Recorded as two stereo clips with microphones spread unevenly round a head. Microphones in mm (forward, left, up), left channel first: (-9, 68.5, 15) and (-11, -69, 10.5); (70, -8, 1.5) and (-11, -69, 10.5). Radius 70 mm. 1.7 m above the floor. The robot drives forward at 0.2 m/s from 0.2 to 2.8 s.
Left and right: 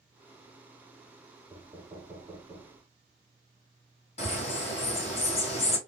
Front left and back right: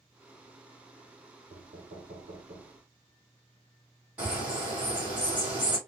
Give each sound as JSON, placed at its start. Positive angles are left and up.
{"t": 1.5, "sound": "knocking", "azimuth_deg": -140, "distance_m": 1.1}
{"t": 4.2, "sound": "a bird", "azimuth_deg": 135, "distance_m": 1.6}